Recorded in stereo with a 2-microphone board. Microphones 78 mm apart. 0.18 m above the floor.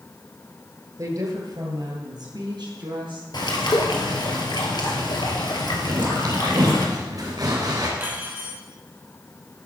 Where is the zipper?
60° right (ahead or behind), 3.5 m.